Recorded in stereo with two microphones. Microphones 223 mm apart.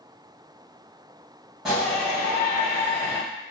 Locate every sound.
1.6 s a shout: centre (ahead or behind), 1.6 m; by 3.2 s 20° left (ahead or behind), 2.5 m